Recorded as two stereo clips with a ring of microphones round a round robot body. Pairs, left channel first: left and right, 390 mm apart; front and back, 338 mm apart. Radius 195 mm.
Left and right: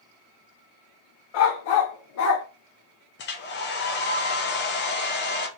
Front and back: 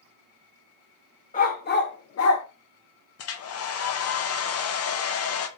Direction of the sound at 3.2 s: 35° left.